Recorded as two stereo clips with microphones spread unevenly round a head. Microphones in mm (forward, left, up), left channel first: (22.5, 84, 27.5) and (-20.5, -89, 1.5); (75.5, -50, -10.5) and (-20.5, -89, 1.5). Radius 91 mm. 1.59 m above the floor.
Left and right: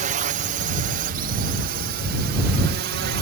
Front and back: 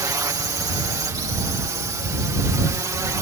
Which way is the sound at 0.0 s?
110° right.